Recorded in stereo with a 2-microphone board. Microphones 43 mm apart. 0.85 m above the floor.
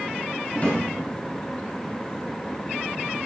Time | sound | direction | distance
0.5 | a drawer | 40° left (ahead or behind) | 2.5 m